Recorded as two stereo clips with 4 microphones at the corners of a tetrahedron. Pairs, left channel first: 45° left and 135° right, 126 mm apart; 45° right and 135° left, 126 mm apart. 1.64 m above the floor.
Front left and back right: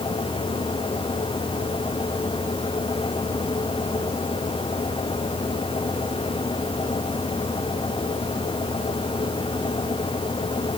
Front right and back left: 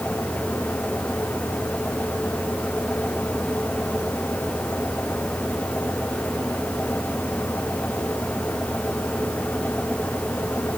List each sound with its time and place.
Only background noise.